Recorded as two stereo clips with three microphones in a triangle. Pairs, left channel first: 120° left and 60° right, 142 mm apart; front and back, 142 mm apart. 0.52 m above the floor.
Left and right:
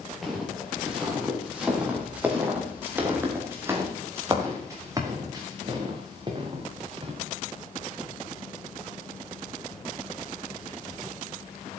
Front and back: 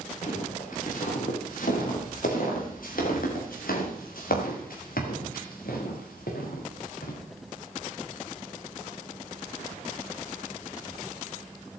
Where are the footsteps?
30° left, 7 m; by 7.1 s 5° right, 5.5 m.